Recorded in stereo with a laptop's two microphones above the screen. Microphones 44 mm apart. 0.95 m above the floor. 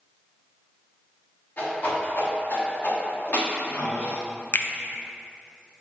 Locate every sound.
1.6 s a whoosh: 45° left (ahead or behind), 1.2 m
4.5 s a finger snap: 45° left (ahead or behind), 0.5 m